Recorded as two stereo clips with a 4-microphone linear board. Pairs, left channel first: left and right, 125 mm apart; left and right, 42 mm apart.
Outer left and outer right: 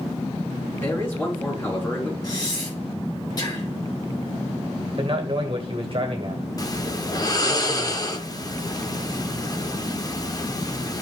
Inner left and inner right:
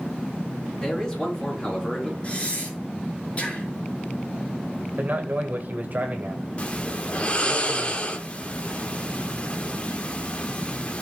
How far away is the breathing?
About 4.5 m.